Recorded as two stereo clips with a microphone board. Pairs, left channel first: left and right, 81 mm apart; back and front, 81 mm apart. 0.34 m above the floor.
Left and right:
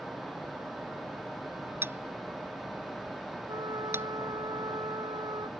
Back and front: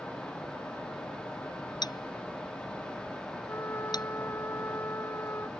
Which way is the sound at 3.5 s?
120° right.